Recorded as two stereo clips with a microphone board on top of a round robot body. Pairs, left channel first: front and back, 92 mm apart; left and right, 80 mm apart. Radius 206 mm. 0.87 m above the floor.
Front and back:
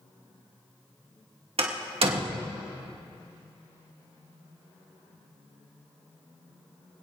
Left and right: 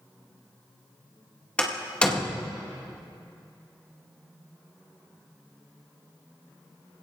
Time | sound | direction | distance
1.6 | a door slam | 165° left | 2 m